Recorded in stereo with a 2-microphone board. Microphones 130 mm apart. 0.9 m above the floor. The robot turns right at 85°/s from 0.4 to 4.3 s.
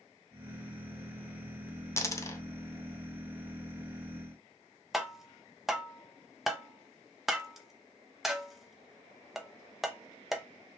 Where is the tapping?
Centre (ahead or behind), 0.6 m.